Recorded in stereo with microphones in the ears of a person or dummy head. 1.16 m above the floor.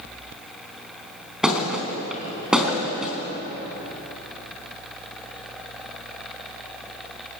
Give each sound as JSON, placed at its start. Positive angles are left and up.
{"t": 1.4, "sound": "a thud", "side_deg": -5, "distance_m": 4.0}